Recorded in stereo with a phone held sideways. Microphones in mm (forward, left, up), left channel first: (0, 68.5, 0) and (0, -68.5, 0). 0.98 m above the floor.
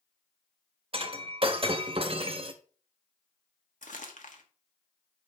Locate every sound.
0.9 s breaking glass: 40° right (ahead or behind), 0.9 m
3.8 s crumpling: 70° left (ahead or behind), 1.3 m